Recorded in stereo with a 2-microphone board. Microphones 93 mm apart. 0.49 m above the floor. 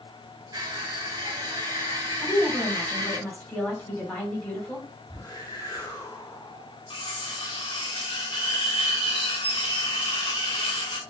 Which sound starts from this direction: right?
Crushing, at 0.5 s.